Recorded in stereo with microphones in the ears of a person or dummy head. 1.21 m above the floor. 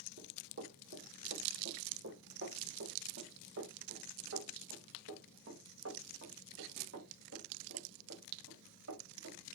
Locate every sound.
0.2 s running footsteps: 55° right (ahead or behind), 3 m; by 9.4 s 80° right, 7 m